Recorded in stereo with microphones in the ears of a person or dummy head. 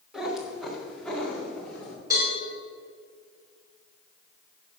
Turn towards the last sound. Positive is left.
turn(degrees=-15)  # may be behind; listen again after turning